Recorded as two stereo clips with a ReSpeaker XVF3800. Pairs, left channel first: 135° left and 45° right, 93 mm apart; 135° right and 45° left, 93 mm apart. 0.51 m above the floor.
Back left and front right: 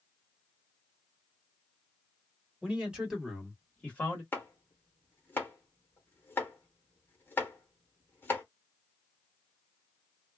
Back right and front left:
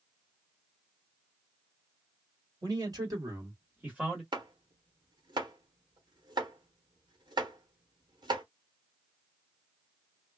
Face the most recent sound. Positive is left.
turn(degrees=70)